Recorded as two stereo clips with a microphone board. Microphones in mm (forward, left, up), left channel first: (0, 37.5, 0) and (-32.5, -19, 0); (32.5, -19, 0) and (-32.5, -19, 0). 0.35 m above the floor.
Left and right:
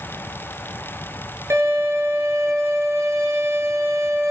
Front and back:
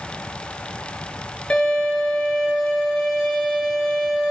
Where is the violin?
75° right, 5 m.